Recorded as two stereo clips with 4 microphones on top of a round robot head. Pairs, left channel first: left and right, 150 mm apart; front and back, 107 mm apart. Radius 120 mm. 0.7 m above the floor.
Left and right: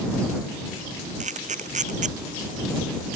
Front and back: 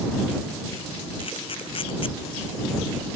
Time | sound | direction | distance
1.2 | a camera shutter | 50° right | ?